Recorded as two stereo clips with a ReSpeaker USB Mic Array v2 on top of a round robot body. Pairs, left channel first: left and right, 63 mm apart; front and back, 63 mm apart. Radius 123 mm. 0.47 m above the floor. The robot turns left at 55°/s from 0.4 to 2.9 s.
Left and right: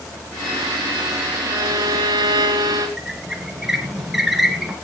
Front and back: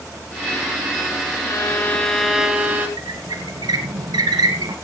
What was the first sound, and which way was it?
A violin, 50° right.